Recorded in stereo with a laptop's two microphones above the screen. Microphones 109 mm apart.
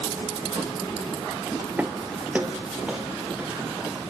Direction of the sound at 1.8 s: 15° right (ahead or behind).